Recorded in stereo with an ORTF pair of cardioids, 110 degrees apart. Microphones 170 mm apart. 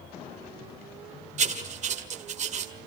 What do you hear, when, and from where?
1.4 s writing: 45° right, 1.9 m